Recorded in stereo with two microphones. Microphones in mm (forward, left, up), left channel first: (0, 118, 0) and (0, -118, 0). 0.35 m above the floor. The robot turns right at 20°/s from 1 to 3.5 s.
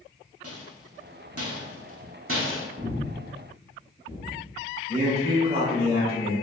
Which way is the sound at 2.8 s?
30° right (ahead or behind).